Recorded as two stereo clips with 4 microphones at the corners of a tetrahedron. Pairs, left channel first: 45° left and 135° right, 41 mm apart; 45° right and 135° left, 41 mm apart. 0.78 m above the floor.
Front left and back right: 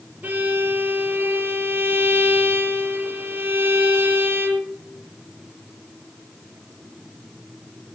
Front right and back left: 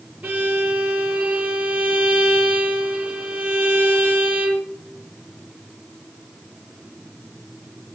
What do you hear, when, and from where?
0.2 s a violin: 175° left, 6.5 m